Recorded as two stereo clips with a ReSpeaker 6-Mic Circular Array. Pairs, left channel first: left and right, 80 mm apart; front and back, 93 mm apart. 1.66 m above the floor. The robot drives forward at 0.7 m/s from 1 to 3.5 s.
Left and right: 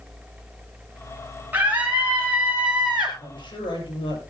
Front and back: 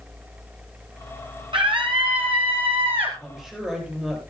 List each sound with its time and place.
1.5 s a scream: 155° right, 1.3 m; by 3.1 s 165° right, 2.5 m
3.2 s a woman speaking: 95° left, 8 m